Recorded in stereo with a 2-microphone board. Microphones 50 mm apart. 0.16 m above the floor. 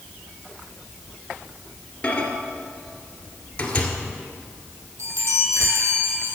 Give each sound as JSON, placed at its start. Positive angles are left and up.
{"t": 2.0, "sound": "a microwave", "side_deg": 25, "distance_m": 1.9}
{"t": 5.0, "sound": "a chime", "side_deg": -70, "distance_m": 3.0}